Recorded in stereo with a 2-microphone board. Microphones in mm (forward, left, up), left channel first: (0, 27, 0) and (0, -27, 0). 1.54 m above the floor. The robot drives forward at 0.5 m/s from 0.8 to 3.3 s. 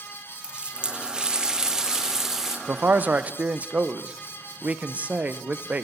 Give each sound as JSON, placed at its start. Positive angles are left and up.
{"t": 0.4, "sound": "a running tap", "side_deg": -15, "distance_m": 0.5}
{"t": 2.7, "sound": "a man speaking", "side_deg": -35, "distance_m": 0.5}